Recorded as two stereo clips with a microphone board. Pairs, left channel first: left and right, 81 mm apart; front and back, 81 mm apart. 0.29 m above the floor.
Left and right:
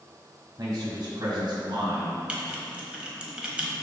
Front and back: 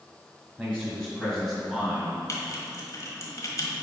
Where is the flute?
I don't hear a flute.